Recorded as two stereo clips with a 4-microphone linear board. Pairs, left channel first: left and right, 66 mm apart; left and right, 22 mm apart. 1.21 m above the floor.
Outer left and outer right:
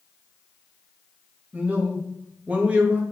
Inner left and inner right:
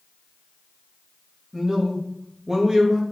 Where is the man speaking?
20° right (ahead or behind), 1.3 m.